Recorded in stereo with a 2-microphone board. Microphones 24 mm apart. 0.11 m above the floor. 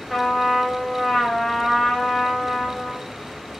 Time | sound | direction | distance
0.1 | a trumpet | centre (ahead or behind) | 3 m